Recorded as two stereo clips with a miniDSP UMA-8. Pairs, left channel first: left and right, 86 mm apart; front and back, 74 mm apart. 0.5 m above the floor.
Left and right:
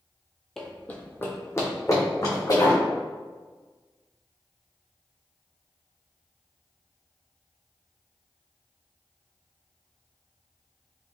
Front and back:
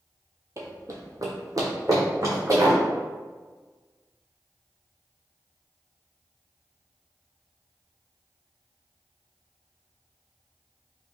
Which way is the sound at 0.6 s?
175° left.